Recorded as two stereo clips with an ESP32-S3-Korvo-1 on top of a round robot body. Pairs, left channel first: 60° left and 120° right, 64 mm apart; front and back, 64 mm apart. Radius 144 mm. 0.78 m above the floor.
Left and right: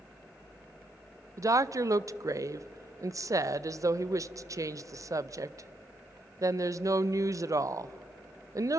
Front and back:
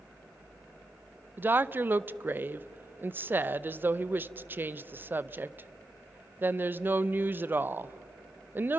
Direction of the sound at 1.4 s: 130° right.